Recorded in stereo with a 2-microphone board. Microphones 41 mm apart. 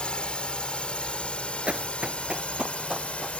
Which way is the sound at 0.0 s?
25° left (ahead or behind).